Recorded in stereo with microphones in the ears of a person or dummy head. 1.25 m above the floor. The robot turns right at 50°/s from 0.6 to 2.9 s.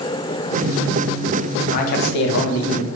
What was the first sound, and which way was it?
A man speaking, 45° left.